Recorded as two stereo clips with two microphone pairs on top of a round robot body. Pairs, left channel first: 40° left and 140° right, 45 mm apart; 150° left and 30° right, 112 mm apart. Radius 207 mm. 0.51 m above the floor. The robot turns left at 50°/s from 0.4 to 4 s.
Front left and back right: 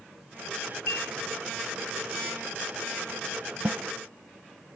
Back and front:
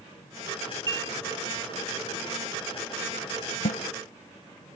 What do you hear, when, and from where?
0.9 s dishes clattering: 25° left; by 1.1 s 10° left
3.6 s a snare drum: 160° left; by 3.8 s 155° left